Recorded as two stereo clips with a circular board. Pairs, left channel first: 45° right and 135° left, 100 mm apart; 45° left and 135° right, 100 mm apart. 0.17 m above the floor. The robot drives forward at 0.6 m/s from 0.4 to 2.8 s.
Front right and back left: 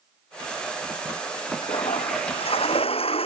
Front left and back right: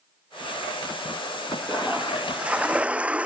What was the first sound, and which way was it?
A toilet flushing, 55° right.